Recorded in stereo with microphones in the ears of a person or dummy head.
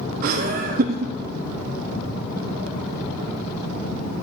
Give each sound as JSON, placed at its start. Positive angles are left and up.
{"t": 0.2, "sound": "laughter", "side_deg": -55, "distance_m": 0.6}